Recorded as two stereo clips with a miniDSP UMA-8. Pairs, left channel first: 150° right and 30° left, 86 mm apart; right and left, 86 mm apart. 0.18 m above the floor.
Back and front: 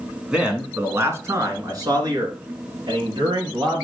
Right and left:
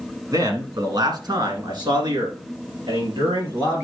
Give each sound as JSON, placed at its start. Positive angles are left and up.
{"t": 0.3, "sound": "a man speaking", "azimuth_deg": 105, "distance_m": 1.8}